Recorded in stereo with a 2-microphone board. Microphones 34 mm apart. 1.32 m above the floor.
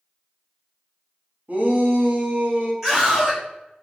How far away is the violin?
No violin in this recording.